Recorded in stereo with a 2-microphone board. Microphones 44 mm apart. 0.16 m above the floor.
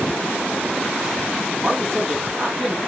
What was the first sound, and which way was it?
A man speaking, 10° right (ahead or behind).